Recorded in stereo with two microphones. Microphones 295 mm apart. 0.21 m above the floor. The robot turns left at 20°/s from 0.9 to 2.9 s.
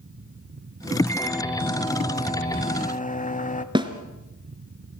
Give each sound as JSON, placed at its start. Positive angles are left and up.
{"t": 1.1, "sound": "a microwave", "azimuth_deg": 165, "distance_m": 0.9}
{"t": 3.8, "sound": "a snare drum", "side_deg": -15, "distance_m": 1.6}